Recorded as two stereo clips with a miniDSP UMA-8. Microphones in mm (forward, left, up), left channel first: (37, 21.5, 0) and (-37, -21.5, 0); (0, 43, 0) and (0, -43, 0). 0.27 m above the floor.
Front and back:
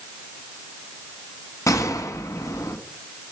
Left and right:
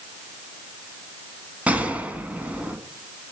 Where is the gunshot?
15° right, 1.1 m.